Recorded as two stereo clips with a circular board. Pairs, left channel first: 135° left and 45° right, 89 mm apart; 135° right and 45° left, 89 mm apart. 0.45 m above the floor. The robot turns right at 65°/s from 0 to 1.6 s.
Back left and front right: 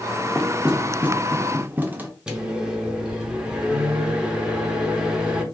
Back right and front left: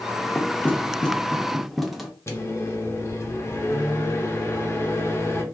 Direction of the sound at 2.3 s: 115° right.